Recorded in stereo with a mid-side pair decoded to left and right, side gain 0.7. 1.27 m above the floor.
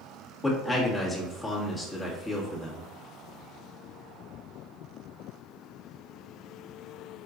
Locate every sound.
0.4 s a man speaking: 20° left, 1.9 m